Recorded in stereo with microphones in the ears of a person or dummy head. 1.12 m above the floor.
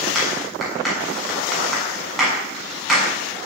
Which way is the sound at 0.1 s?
Centre (ahead or behind).